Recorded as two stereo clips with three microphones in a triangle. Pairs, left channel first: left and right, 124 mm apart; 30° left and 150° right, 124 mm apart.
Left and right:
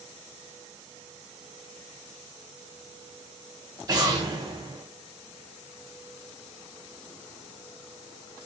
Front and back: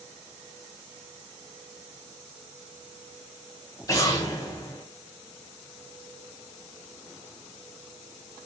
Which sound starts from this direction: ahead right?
An explosion, at 3.9 s.